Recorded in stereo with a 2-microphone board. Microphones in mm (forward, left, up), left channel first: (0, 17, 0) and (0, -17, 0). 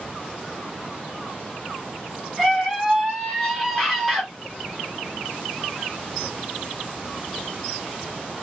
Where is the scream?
5° left (ahead or behind), 1.2 m.